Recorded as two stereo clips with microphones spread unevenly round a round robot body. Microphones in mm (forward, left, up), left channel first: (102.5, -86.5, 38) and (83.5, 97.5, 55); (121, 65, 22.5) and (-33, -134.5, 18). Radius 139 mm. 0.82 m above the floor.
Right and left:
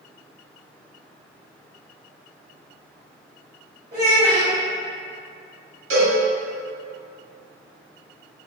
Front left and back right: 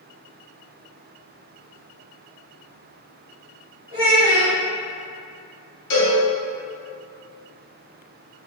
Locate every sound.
3.9 s a child speaking: 175° left, 1.5 m
5.9 s a cowbell: 100° left, 1.4 m